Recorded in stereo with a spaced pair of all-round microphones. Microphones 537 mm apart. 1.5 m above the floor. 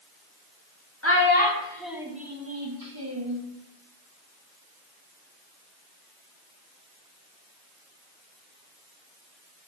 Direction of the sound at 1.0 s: 25° left (ahead or behind).